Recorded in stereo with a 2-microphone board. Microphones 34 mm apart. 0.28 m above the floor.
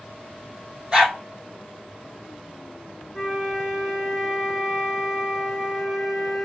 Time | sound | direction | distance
0.9 | a dog barking | 25° right (ahead or behind) | 4 m
3.1 | a flute | 5° right (ahead or behind) | 2 m